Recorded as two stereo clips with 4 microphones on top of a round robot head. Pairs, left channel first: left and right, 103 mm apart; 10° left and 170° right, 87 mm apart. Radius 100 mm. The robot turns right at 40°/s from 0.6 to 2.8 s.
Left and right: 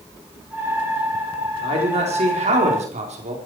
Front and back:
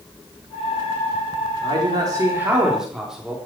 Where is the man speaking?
130° right, 4 m; by 3.4 s 85° right, 4 m.